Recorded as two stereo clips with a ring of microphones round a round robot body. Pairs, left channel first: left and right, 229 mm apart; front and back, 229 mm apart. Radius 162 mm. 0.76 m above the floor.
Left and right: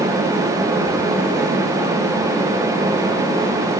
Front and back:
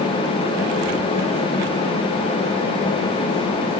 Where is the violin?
I don't hear a violin.